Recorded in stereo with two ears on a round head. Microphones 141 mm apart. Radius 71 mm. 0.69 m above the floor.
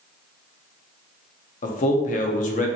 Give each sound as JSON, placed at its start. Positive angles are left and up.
{"t": 1.6, "sound": "a man speaking", "side_deg": 50, "distance_m": 0.7}